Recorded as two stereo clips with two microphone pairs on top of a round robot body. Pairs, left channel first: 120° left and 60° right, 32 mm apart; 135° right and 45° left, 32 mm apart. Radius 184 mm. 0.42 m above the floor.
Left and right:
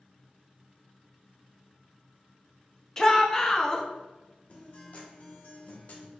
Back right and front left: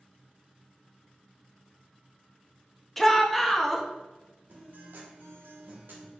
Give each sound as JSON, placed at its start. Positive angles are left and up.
{"t": 3.0, "sound": "a shout", "azimuth_deg": 175, "distance_m": 0.8}
{"t": 4.5, "sound": "a guitar", "azimuth_deg": 70, "distance_m": 0.7}